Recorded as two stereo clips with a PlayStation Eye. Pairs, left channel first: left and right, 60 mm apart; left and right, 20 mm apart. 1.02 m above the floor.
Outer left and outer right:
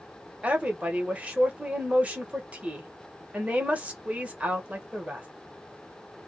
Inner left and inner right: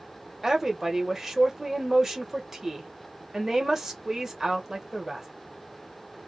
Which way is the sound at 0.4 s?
20° right (ahead or behind).